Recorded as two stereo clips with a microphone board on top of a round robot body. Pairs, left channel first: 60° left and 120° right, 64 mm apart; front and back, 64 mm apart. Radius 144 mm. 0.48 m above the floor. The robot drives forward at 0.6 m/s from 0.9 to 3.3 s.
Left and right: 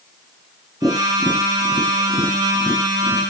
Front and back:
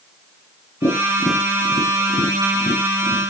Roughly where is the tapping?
Ahead.